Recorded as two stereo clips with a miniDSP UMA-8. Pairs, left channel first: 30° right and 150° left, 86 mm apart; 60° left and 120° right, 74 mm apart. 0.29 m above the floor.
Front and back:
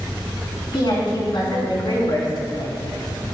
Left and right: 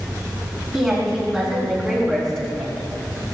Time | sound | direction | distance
0.7 | a woman speaking | 35° right | 3.5 m